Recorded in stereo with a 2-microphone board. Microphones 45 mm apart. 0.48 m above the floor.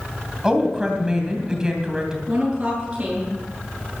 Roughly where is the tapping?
I don't hear tapping.